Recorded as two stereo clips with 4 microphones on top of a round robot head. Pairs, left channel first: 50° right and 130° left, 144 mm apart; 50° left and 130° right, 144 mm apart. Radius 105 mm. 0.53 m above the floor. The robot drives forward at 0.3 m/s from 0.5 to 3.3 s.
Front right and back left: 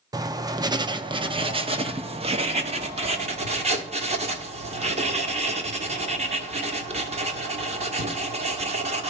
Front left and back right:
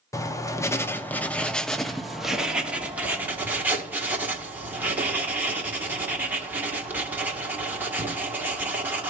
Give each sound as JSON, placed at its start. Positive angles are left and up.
{"t": 0.1, "sound": "writing", "azimuth_deg": 95, "distance_m": 0.8}